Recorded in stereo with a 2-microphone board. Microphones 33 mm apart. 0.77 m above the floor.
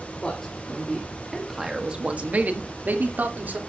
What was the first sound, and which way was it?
A man speaking, 25° left (ahead or behind).